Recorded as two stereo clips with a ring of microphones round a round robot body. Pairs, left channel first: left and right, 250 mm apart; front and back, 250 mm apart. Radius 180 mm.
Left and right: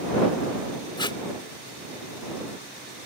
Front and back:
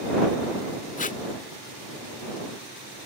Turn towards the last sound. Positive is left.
turn(degrees=30)